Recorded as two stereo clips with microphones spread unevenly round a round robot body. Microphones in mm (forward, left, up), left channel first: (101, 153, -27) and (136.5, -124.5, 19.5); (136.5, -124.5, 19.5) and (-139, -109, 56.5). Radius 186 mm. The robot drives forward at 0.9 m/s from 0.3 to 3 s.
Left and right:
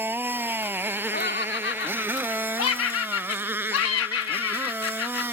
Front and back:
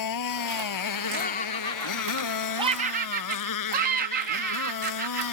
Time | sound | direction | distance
0.0 | a motorcycle | straight ahead | ?
1.1 | laughter | 50° left | ?